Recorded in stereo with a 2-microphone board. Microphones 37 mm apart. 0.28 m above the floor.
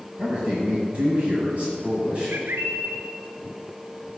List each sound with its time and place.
0.2 s a man speaking: 35° right (ahead or behind), 1.7 m
2.3 s a bird: 80° right, 0.8 m